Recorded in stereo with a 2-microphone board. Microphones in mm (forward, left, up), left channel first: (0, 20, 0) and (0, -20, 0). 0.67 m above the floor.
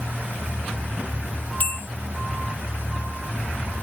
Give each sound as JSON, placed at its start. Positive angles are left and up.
{"t": 1.6, "sound": "a bell", "side_deg": 45}